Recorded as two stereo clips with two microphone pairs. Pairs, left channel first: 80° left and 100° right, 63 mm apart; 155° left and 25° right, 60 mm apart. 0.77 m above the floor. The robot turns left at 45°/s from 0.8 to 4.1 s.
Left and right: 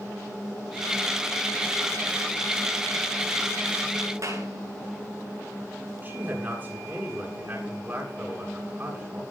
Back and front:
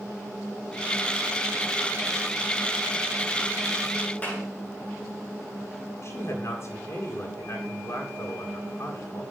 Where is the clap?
135° right, 9 m.